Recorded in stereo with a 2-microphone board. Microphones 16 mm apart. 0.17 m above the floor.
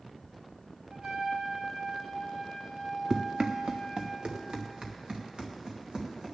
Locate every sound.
0.9 s a trumpet: 60° right (ahead or behind), 2.5 m
3.1 s running footsteps: 65° right (ahead or behind), 0.8 m; by 6.3 s 60° right (ahead or behind), 3.5 m